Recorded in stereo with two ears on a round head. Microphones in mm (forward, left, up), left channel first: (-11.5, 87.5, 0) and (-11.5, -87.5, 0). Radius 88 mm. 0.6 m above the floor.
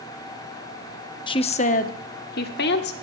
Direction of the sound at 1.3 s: 25° left (ahead or behind).